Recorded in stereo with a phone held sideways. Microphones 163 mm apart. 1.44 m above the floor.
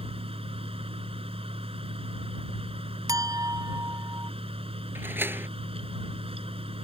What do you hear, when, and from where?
0.0 s a fan: 35° right (ahead or behind)
3.1 s a clink: 20° right (ahead or behind)
5.0 s a door slam: 15° right (ahead or behind)